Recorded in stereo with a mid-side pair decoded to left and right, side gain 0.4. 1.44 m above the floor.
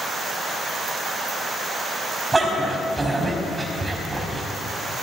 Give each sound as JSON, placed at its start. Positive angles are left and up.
{"t": 2.3, "sound": "a dog barking", "azimuth_deg": -25, "distance_m": 4.5}